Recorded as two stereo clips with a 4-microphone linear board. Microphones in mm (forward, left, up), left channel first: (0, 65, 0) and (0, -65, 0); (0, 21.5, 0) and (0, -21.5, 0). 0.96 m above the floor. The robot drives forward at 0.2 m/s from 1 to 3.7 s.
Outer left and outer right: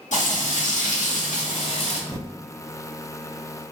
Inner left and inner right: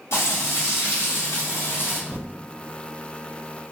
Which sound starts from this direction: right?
Typing on a keyboard, at 2.1 s.